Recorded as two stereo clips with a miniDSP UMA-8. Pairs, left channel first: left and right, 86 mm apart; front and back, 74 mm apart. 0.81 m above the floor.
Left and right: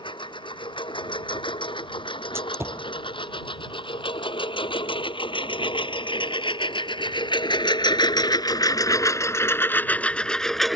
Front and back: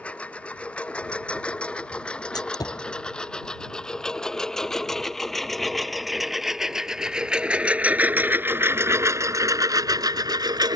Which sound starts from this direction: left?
A lawn mower, at 0.0 s.